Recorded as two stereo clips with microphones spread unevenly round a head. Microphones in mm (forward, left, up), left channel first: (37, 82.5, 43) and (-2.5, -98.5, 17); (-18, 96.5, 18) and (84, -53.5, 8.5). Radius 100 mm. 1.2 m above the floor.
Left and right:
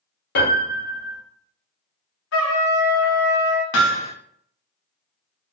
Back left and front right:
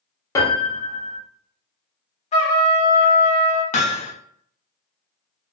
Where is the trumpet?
75° left, 1.2 m.